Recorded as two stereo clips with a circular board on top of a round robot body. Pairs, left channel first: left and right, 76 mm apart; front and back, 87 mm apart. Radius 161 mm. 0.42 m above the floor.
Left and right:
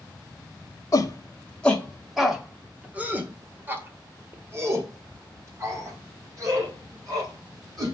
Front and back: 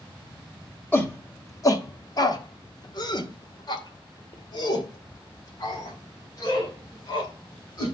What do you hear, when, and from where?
0.9 s a shout: 60° left, 1.4 m; by 7.9 s 45° right, 5.5 m